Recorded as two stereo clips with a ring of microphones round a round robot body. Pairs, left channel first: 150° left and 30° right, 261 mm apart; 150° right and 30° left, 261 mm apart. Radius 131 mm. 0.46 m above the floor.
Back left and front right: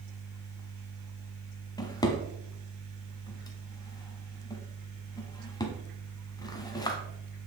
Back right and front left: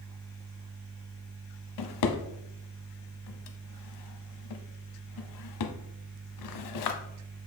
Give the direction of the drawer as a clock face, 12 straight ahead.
4 o'clock.